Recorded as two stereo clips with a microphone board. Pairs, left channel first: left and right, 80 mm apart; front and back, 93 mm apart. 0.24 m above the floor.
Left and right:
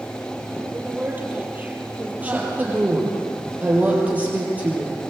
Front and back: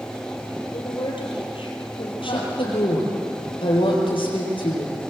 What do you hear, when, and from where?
0.7 s a woman speaking: 20° right, 5.5 m
2.2 s a woman speaking: 20° right, 6.5 m